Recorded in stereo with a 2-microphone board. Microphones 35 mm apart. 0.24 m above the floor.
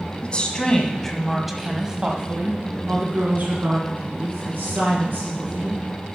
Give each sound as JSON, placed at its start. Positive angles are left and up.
{"t": 0.2, "sound": "a woman speaking", "side_deg": 35, "distance_m": 1.8}